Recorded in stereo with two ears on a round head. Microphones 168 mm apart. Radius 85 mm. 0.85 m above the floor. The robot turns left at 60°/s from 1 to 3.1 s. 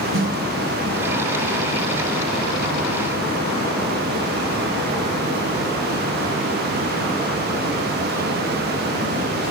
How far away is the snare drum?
About 3.5 m.